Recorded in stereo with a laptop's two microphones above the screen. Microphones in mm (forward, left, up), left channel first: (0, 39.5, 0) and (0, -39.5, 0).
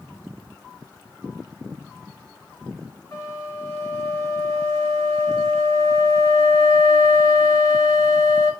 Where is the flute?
35° left (ahead or behind), 1.3 m.